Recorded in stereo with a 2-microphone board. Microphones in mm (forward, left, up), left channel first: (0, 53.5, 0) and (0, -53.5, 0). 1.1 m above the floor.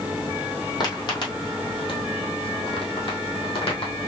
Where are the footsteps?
40° left (ahead or behind), 1.9 m; by 4.1 s 60° left (ahead or behind), 2.5 m.